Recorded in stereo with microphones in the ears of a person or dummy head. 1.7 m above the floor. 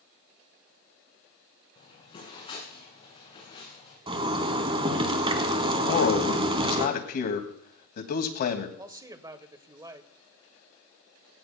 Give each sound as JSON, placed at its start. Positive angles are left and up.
{"t": 1.8, "sound": "footsteps", "side_deg": 25, "distance_m": 8.0}
{"t": 4.1, "sound": "a zipper", "side_deg": -35, "distance_m": 1.2}
{"t": 5.9, "sound": "a man speaking", "side_deg": 50, "distance_m": 2.0}
{"t": 8.8, "sound": "a man speaking", "side_deg": -25, "distance_m": 1.1}